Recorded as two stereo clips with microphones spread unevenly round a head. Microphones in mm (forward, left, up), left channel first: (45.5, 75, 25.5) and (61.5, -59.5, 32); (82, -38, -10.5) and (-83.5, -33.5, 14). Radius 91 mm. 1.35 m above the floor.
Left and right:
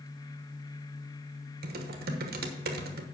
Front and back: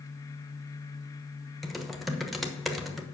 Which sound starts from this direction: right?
Typing on a keyboard, at 1.6 s.